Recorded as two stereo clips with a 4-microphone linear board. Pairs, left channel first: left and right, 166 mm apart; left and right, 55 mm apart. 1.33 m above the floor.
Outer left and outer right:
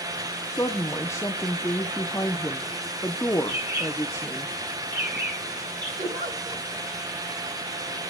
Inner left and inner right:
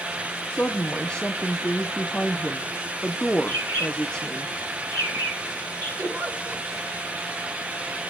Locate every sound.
0.5 s a woman speaking: 15° left (ahead or behind), 0.8 m
3.5 s a bird: 80° right, 9.5 m
6.0 s a giggle: 45° right (ahead or behind), 6 m